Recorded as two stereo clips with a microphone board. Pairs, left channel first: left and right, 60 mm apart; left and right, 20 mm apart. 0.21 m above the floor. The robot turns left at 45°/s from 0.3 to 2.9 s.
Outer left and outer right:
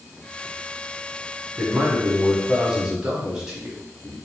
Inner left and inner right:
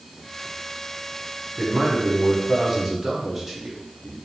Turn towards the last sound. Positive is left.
turn(degrees=-10)  # may be behind; listen again after turning